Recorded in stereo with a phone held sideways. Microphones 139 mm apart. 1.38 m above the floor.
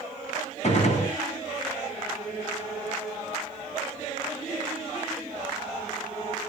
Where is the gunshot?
55° left (ahead or behind), 2.5 m.